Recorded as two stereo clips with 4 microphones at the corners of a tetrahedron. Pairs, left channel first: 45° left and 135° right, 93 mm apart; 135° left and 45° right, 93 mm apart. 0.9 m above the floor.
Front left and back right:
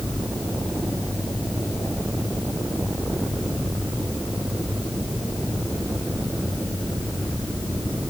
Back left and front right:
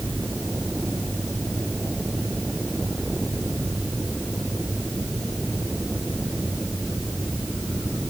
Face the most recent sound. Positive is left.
No sound to turn to.